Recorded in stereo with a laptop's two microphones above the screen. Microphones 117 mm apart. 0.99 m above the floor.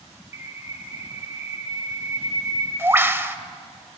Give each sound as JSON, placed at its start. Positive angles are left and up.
{"t": 0.3, "sound": "a bird", "side_deg": -20, "distance_m": 0.8}